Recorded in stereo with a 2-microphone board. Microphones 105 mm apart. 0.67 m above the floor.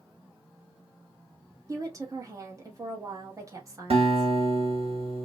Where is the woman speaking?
30° right (ahead or behind), 0.9 m.